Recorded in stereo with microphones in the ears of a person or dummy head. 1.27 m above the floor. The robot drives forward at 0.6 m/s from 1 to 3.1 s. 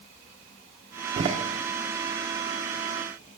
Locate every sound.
1.2 s a door slam: 40° right (ahead or behind), 0.7 m; by 1.4 s 35° right (ahead or behind), 0.8 m